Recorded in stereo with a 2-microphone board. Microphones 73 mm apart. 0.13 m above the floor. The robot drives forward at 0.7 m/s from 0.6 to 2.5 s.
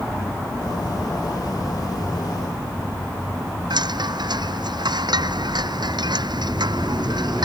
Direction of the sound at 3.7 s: 75° right (ahead or behind).